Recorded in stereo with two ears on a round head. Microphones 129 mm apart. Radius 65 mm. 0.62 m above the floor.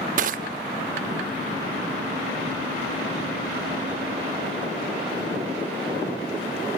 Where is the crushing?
60° right (ahead or behind), 0.8 m.